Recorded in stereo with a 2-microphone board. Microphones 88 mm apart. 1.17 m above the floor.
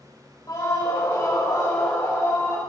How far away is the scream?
About 4 m.